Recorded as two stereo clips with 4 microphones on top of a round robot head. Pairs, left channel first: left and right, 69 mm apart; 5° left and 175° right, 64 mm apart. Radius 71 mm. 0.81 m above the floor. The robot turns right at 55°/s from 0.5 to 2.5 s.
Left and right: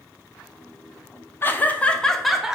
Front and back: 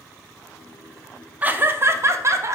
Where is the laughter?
130° left, 0.5 m; by 2.6 s 170° right, 0.5 m.